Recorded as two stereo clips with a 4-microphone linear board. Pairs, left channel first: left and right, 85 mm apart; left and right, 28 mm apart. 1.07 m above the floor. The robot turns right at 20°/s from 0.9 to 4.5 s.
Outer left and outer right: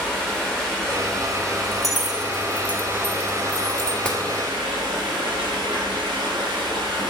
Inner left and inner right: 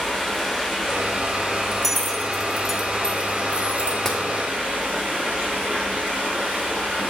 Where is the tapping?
15° left (ahead or behind), 1.2 m; by 4.2 s 10° left (ahead or behind), 1.2 m.